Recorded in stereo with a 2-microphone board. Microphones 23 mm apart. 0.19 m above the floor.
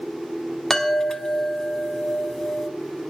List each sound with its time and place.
0.7 s a chime: 20° left (ahead or behind), 1.0 m